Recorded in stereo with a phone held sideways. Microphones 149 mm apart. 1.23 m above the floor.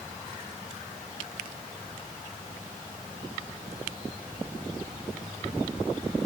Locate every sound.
Only background noise.